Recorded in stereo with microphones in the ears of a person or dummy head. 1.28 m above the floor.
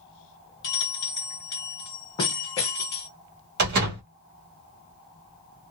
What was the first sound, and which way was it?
A bell, 25° left (ahead or behind).